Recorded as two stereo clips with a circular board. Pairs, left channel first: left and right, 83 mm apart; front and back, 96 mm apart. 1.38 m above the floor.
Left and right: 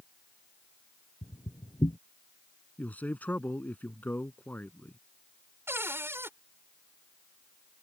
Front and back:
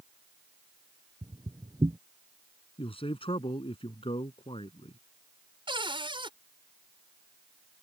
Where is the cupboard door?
150° right.